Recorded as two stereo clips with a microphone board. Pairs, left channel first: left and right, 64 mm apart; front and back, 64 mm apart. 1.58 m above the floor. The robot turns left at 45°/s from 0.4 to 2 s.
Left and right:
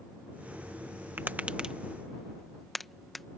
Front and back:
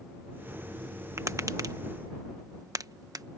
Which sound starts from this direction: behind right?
Tapping, at 1.2 s.